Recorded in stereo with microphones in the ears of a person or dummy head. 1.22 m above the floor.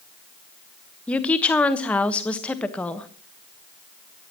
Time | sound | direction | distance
1.1 | a woman speaking | 10° left (ahead or behind) | 1.3 m